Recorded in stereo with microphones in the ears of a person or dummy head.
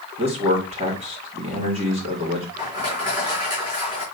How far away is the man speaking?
About 2.5 m.